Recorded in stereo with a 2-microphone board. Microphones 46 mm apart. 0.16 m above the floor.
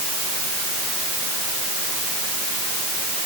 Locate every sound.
Only background noise.